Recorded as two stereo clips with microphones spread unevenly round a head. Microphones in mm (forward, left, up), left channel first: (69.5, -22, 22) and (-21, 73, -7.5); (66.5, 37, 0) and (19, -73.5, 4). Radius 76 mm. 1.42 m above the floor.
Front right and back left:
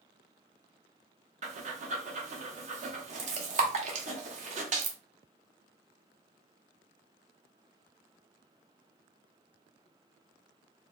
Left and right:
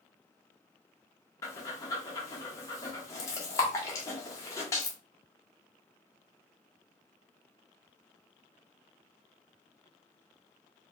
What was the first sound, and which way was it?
Breathing, 125° left.